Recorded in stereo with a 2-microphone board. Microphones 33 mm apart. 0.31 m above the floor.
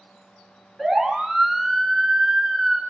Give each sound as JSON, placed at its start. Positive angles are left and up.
{"t": 0.8, "sound": "a siren", "side_deg": 0, "distance_m": 5.0}